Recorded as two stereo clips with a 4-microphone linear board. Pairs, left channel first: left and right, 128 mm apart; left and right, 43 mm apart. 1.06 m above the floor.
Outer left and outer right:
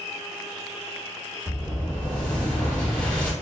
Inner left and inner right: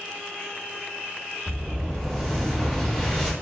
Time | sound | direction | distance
1.5 | an explosion | 10° left (ahead or behind) | 0.9 m